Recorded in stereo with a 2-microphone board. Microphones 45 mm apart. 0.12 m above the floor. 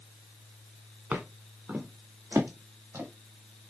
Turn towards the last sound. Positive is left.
turn(degrees=-80)